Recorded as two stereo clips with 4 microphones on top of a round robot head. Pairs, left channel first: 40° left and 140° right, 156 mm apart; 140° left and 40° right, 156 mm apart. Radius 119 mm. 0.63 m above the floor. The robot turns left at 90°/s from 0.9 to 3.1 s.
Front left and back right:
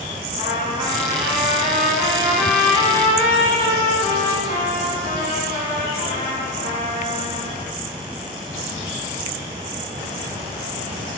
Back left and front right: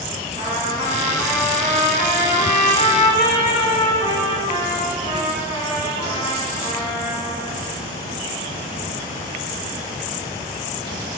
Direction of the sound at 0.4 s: 85° right.